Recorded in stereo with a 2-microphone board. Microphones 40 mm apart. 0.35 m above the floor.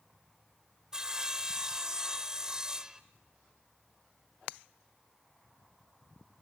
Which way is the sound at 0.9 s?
20° right (ahead or behind).